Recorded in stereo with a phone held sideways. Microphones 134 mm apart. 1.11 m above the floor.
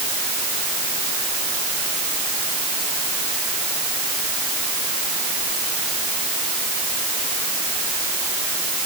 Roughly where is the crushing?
I don't hear crushing.